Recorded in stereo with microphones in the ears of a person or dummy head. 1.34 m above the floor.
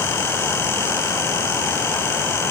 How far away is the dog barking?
No dog barking in this recording.